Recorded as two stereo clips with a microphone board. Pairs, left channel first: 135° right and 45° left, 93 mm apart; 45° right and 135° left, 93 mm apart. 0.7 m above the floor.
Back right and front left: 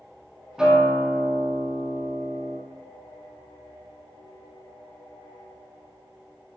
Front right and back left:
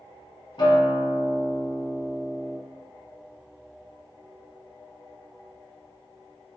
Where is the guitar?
35° right, 1.4 m.